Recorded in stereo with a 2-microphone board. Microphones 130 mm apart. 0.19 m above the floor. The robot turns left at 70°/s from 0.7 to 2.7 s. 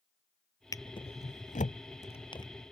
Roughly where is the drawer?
Left.